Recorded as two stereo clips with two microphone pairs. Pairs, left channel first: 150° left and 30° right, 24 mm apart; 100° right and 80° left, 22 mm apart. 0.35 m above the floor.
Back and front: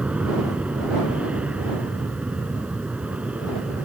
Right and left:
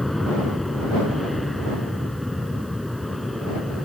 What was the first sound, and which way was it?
An aircraft, 15° right.